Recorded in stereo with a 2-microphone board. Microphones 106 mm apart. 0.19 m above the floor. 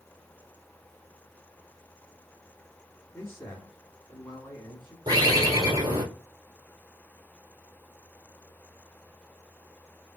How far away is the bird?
About 2 m.